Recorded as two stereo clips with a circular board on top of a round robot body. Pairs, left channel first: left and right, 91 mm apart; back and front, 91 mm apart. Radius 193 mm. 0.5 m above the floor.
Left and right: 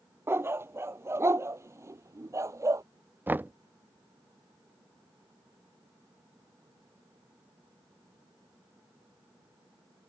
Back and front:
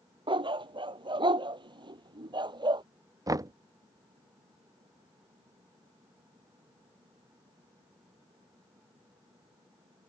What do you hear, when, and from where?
0.3 s a dog barking: 25° right; by 2.8 s 35° right
3.3 s knocking: 30° right